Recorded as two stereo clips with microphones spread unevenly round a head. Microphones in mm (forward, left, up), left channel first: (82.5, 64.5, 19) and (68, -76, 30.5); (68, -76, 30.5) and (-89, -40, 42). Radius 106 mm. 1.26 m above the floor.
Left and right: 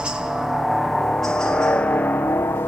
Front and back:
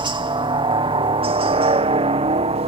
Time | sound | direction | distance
0.0 | a helicopter | straight behind | ?